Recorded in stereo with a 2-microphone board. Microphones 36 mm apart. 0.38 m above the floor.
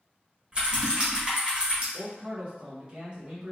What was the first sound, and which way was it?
Typing on a keyboard, 25° right (ahead or behind).